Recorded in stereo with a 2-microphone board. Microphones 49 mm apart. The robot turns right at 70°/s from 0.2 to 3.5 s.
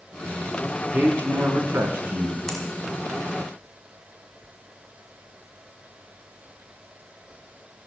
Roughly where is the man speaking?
Behind right.